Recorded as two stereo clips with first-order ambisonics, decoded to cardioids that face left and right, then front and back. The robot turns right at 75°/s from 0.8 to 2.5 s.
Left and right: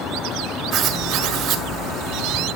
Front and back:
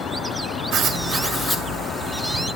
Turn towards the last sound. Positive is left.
turn(degrees=-15)